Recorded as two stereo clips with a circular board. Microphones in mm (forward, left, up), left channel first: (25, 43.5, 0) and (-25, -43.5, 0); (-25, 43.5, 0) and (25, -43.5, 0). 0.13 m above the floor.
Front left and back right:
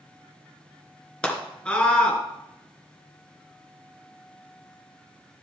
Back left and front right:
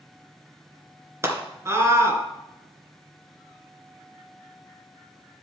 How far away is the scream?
About 2 m.